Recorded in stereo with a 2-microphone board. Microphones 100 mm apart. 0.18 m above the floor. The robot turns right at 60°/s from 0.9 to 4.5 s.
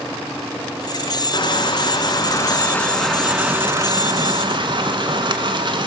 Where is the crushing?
70° left, 1.1 m; by 5.9 s 100° right, 1.1 m.